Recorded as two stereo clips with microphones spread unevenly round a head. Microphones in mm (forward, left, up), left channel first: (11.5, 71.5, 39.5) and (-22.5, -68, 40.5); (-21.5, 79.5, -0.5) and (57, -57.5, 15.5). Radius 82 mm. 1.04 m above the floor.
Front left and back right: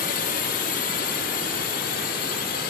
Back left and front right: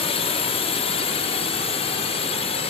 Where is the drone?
70° left.